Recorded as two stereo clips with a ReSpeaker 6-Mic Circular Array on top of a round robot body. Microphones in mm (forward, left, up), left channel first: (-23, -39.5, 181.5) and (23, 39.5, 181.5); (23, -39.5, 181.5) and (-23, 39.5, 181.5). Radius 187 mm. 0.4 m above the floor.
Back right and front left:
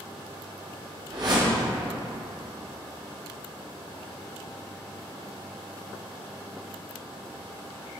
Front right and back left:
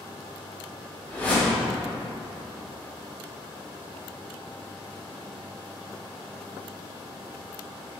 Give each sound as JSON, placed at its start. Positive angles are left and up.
{"t": 1.1, "sound": "a whoosh", "azimuth_deg": 15, "distance_m": 0.8}